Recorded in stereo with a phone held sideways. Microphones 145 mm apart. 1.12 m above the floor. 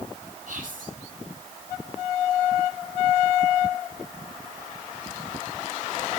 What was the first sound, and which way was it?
Whispering, 70° right (ahead or behind).